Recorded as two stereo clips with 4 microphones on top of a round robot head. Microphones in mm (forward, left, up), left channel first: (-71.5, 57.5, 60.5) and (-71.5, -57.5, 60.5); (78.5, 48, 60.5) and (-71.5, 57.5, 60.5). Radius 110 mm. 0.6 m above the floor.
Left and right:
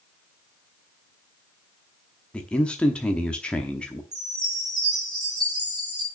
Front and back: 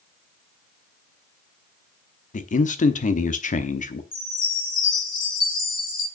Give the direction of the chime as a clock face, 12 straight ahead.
1 o'clock.